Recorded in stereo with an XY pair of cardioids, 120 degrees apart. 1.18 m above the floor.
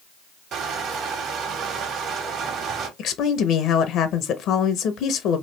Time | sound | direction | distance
0.5 | crushing | 65° right | 1.3 m
3.0 | a woman speaking | 70° left | 0.7 m